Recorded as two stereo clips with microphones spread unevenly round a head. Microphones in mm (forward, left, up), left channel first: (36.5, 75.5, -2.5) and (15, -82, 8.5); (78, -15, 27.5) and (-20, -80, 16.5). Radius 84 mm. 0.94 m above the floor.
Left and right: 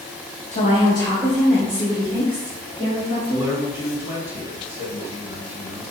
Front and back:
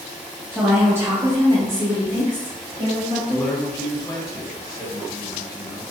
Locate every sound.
0.5 s a woman speaking: 120° left, 0.9 m; by 3.5 s 150° right, 2 m
3.3 s a man speaking: 25° right, 1.1 m